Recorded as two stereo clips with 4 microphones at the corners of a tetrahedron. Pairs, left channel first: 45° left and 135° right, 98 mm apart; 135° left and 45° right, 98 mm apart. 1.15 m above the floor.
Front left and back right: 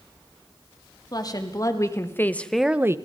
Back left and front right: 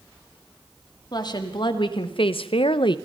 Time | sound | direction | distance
1.1 | a woman speaking | 90° left | 2.5 m